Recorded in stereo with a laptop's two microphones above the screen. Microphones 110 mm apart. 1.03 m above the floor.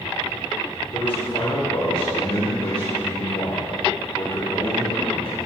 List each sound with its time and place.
0.9 s a man speaking: 55° left (ahead or behind), 3 m